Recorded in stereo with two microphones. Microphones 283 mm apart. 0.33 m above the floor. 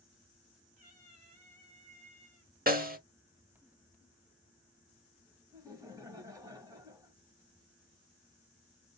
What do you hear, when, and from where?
0.8 s a cat meowing: 25° right (ahead or behind), 2.5 m
2.7 s a snare drum: 30° right (ahead or behind), 0.7 m
5.5 s laughter: 10° right (ahead or behind), 1.6 m